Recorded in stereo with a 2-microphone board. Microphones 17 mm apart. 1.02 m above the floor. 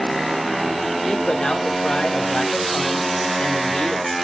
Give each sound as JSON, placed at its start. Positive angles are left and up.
{"t": 1.0, "sound": "a man speaking", "side_deg": 80, "distance_m": 3.0}